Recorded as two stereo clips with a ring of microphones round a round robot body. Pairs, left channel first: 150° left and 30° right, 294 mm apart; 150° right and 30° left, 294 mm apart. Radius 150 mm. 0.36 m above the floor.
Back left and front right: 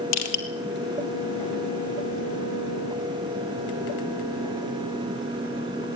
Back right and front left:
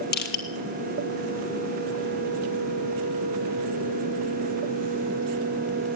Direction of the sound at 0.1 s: 150° left.